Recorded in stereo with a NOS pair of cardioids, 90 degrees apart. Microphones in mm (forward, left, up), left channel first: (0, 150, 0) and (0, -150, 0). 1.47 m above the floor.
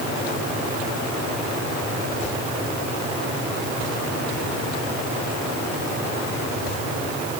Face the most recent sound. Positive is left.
No sound to turn to.